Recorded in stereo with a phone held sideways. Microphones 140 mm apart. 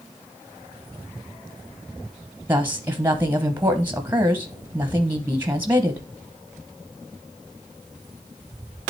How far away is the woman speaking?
About 0.9 m.